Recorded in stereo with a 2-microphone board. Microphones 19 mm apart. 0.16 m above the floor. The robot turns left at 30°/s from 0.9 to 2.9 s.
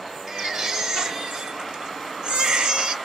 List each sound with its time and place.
0.3 s a baby crying: 35° right, 1.9 m; by 3.0 s 95° right, 1.9 m